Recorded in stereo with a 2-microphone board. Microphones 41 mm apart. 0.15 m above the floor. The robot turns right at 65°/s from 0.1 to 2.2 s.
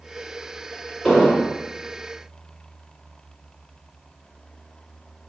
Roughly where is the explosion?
Ahead.